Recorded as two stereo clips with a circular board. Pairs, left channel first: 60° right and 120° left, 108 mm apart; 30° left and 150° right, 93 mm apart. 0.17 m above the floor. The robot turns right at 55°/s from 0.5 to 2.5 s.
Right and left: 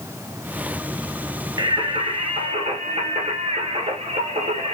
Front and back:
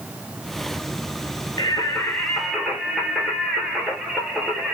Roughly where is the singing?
Left.